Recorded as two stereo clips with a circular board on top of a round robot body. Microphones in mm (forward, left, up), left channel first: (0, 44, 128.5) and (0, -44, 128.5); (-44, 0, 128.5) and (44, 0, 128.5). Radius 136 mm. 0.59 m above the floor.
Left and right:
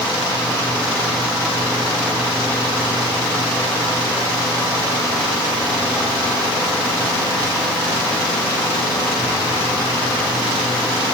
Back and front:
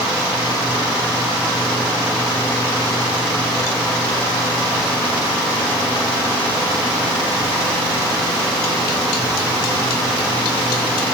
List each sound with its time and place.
Only background noise.